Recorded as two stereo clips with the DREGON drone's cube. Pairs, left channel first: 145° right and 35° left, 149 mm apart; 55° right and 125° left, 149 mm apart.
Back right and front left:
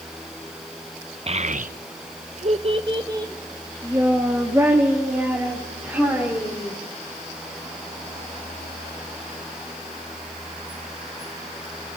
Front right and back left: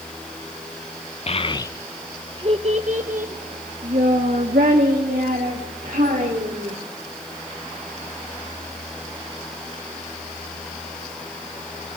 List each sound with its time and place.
1.3 s a child speaking: 10° right, 0.6 m; by 6.7 s 115° left, 3.5 m